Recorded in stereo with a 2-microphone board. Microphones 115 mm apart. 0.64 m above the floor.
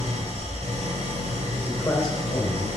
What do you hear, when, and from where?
0.0 s an engine running: 70° right (ahead or behind), 2.5 m
1.6 s a man speaking: 30° left (ahead or behind), 2.5 m